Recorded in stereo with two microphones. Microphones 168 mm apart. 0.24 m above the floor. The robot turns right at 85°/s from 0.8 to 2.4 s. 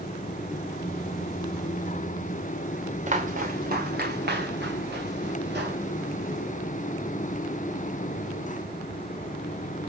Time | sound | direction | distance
3.1 | footsteps | 45° right (ahead or behind) | 1.7 m